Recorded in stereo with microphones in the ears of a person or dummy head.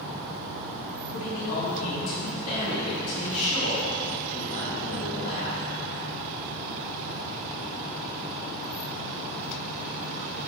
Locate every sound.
1.1 s a man speaking: 45° left (ahead or behind), 1.9 m